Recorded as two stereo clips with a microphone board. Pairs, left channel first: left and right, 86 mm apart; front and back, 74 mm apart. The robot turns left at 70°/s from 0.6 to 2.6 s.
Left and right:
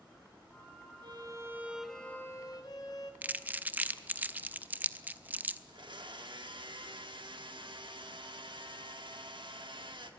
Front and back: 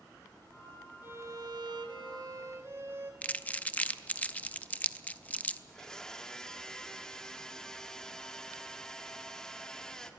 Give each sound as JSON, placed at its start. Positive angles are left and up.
{"t": 1.0, "sound": "a violin", "azimuth_deg": -120, "distance_m": 1.4}
{"t": 3.2, "sound": "crumpling", "azimuth_deg": -45, "distance_m": 0.6}
{"t": 5.7, "sound": "a blender", "azimuth_deg": -80, "distance_m": 1.1}